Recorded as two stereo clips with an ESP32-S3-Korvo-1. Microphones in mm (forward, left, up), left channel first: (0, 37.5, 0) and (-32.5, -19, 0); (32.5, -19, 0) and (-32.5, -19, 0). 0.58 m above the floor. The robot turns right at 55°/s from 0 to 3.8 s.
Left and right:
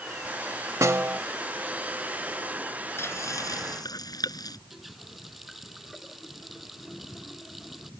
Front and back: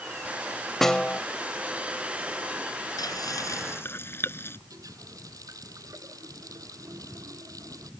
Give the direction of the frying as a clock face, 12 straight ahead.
12 o'clock.